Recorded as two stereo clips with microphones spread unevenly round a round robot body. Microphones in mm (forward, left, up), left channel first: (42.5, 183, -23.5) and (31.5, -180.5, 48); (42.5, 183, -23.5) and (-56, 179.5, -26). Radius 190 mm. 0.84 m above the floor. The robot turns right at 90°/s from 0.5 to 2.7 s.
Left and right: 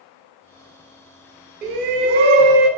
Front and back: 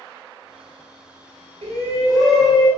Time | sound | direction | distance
1.6 | a shout | 160° right | 1.3 m